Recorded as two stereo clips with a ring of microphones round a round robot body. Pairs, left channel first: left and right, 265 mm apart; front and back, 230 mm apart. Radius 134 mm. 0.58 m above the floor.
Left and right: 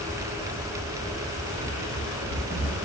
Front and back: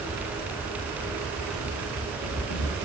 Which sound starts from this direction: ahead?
Running footsteps, at 1.6 s.